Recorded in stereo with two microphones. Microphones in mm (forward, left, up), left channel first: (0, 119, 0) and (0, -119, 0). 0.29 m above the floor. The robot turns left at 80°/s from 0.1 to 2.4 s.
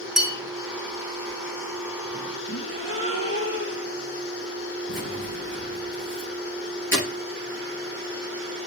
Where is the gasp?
80° left, 1.9 m.